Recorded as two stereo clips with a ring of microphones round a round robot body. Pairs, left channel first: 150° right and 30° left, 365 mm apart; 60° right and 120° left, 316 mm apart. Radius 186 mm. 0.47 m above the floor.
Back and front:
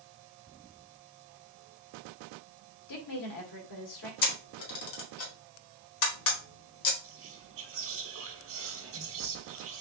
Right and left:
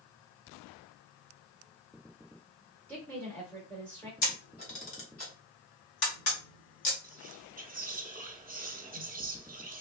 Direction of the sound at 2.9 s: 145° right.